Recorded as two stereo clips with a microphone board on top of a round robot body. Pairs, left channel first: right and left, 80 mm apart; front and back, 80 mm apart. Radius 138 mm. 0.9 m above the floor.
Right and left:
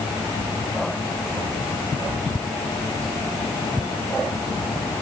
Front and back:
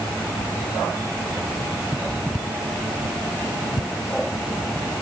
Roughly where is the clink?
No clink in this recording.